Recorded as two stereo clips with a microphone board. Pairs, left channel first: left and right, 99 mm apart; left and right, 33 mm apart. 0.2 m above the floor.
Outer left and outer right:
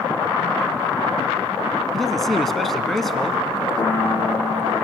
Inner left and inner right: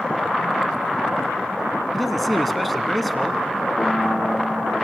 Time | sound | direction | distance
1.9 | a man speaking | centre (ahead or behind) | 1.6 m
3.8 | a piano | 55° left (ahead or behind) | 7.5 m